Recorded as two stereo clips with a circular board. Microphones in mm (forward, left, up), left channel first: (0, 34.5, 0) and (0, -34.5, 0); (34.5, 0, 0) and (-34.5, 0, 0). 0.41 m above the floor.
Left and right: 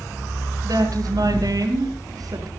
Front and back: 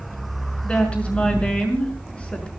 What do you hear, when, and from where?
0.6 s a woman speaking: 75° right, 6 m